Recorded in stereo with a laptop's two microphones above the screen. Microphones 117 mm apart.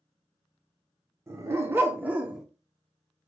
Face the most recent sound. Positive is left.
turn(degrees=-5)  # may be behind; listen again after turning